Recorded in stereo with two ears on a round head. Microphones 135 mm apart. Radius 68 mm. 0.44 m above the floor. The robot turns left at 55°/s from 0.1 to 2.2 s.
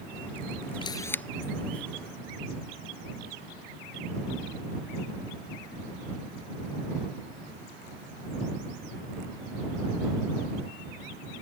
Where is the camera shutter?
30° left (ahead or behind); by 1.2 s 10° left (ahead or behind).